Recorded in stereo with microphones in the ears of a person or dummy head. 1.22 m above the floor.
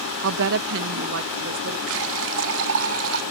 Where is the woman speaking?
70° right (ahead or behind).